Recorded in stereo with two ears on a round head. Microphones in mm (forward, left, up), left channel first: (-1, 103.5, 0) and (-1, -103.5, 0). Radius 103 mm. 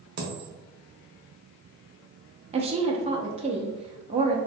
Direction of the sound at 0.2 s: 45° right (ahead or behind).